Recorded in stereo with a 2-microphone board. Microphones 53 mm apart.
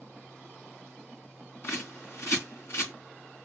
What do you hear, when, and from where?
1.6 s a bird: 60° left (ahead or behind), 2.5 m